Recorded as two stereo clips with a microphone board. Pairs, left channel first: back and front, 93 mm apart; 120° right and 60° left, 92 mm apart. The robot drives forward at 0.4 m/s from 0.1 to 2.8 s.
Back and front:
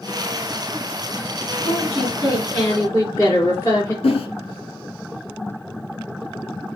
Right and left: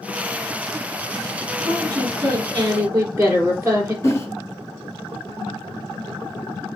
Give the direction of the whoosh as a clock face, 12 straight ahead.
6 o'clock.